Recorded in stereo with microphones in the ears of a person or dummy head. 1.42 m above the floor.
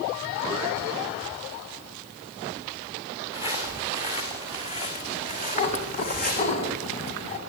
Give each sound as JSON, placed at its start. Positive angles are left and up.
{"t": 3.3, "sound": "footsteps", "side_deg": 30, "distance_m": 6.0}
{"t": 5.5, "sound": "a cat meowing", "side_deg": 35, "distance_m": 2.5}